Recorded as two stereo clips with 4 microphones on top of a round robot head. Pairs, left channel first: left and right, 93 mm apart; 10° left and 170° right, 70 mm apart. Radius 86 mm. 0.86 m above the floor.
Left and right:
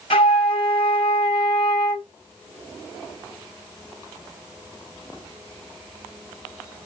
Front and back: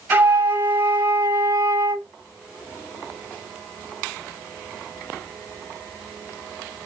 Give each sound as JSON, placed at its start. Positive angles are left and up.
{"t": 0.1, "sound": "a flute", "azimuth_deg": 130, "distance_m": 0.9}